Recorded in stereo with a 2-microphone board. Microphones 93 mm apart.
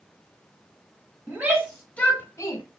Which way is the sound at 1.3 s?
20° right (ahead or behind).